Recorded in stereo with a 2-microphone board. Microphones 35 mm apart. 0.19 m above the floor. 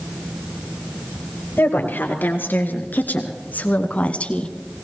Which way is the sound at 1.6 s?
70° left (ahead or behind).